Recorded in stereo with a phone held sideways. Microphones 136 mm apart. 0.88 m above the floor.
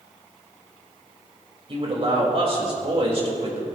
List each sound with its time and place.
1.7 s a man speaking: 45° right (ahead or behind), 3.5 m